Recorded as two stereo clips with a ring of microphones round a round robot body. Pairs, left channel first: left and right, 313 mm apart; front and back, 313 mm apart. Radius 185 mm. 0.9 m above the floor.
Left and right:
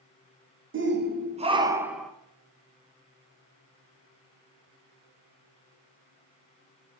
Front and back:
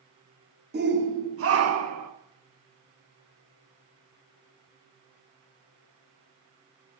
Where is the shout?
130° right, 1.1 m; by 2.1 s straight behind, 1.1 m.